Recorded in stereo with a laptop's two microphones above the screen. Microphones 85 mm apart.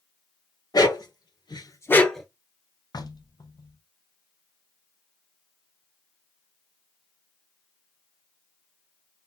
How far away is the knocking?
About 0.7 m.